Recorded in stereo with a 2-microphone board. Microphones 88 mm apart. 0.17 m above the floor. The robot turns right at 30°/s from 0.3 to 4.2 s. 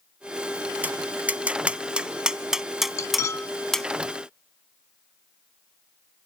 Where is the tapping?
20° right (ahead or behind), 0.6 m; by 3.9 s 5° left (ahead or behind), 0.6 m.